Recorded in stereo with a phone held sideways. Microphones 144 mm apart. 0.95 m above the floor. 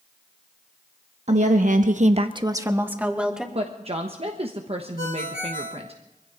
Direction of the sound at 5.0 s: 85° left.